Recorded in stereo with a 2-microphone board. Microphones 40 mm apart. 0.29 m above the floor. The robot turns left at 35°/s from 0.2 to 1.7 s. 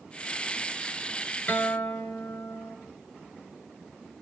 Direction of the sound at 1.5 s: 35° left (ahead or behind).